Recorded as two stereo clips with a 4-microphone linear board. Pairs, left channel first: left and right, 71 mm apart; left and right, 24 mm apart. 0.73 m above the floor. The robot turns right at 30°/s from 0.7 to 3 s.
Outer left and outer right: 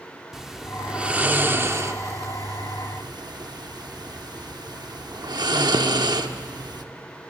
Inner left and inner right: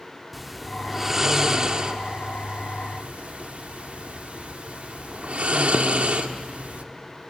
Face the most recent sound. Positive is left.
turn(degrees=-70)  # may be behind; listen again after turning